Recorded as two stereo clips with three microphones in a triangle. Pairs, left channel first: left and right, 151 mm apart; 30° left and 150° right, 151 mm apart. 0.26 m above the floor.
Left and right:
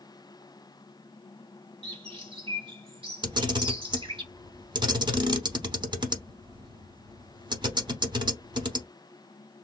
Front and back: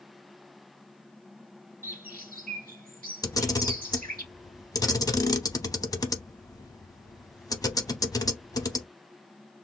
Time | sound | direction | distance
1.8 | a bird | 140° right | 1.2 m
3.2 | a camera shutter | 35° right | 0.7 m